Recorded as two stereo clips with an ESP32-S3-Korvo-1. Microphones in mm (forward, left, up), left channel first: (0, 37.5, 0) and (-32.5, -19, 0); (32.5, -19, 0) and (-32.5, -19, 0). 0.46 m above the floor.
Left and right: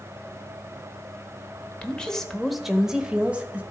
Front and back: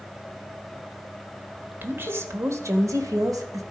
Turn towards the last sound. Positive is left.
turn(degrees=175)